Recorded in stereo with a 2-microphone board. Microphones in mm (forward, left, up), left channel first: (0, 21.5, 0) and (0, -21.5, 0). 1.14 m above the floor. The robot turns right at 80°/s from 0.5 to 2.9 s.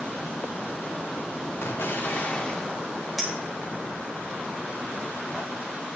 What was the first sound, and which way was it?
An explosion, 85° left.